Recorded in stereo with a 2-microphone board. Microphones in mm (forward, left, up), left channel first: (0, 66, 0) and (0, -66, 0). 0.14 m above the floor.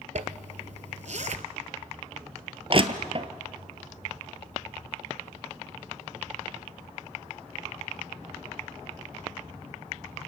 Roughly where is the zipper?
Right.